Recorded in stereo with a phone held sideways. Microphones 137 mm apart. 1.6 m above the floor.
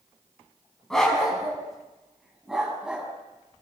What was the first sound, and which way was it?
A dog barking, 5° left (ahead or behind).